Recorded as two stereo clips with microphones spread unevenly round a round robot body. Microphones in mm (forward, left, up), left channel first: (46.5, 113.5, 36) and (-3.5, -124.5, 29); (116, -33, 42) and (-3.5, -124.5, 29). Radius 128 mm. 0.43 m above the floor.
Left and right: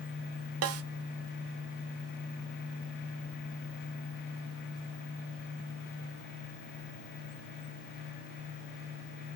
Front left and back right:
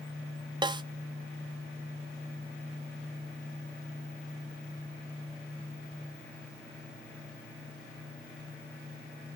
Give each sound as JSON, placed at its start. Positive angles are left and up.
{"t": 0.6, "sound": "a snare drum", "azimuth_deg": -85, "distance_m": 0.6}